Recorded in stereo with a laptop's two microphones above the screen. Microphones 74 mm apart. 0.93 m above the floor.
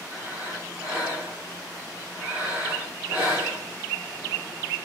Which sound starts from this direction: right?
Breathing, at 0.1 s.